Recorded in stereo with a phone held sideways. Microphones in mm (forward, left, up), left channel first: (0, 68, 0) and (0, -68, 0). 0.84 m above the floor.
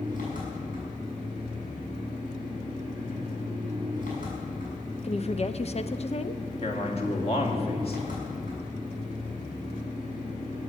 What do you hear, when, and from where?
0.0 s an engine running: 75° left (ahead or behind), 6.5 m
5.0 s a woman speaking: 50° left (ahead or behind), 0.7 m
6.6 s a man speaking: 45° left (ahead or behind), 2.5 m